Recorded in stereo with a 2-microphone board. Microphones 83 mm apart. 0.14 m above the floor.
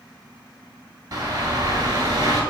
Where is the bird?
45° right (ahead or behind), 0.7 m.